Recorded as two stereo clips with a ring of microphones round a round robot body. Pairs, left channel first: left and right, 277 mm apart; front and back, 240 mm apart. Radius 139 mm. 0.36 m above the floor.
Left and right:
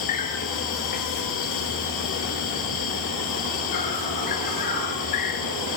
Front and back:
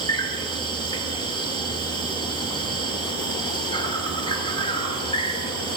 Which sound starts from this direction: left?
An insect, at 0.0 s.